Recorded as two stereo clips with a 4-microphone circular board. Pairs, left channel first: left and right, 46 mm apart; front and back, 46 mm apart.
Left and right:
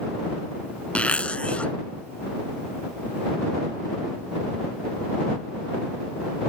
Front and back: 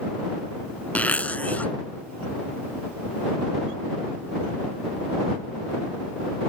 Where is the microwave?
I don't hear a microwave.